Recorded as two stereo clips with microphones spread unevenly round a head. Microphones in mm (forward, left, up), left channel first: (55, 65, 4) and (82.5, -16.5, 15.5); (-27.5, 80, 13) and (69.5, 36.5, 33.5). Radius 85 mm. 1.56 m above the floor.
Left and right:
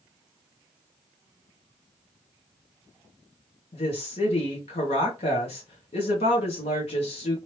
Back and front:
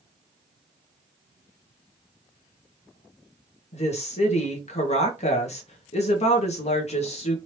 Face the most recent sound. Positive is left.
turn(degrees=140)